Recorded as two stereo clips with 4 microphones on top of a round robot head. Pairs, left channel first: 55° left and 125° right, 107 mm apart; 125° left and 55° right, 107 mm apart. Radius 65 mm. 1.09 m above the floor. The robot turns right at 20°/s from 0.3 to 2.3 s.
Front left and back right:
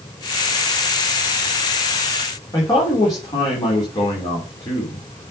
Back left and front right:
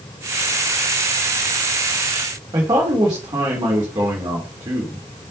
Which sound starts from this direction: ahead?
A man speaking, at 2.5 s.